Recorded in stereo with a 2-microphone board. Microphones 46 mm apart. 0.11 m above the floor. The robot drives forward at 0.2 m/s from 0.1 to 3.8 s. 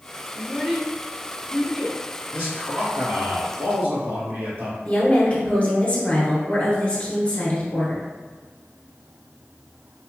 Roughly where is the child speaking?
Centre.